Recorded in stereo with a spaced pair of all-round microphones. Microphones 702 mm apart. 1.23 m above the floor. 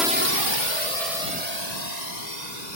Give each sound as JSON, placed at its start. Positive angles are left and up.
{"t": 0.0, "sound": "a drone", "side_deg": 0}